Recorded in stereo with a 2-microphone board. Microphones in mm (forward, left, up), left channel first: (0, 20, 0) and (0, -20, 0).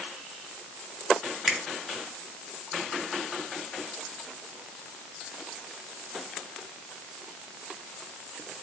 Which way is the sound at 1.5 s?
10° right (ahead or behind).